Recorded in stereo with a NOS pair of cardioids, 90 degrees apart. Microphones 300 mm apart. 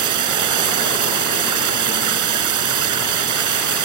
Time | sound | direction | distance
0.0 | running water | 70° right | ?